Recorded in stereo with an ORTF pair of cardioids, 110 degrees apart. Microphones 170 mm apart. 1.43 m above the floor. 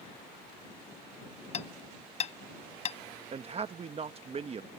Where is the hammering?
40° left.